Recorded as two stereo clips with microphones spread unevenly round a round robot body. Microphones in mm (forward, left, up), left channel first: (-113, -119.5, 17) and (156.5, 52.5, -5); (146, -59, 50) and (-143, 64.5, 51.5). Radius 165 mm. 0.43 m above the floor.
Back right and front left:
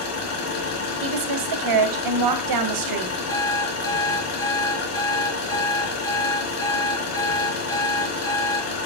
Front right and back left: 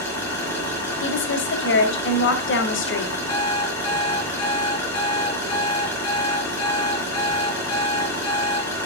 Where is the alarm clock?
70° right, 5 m.